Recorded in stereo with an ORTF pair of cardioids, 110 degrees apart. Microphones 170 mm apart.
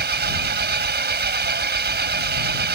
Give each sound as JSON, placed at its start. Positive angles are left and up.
{"t": 0.0, "sound": "an engine running", "azimuth_deg": -70}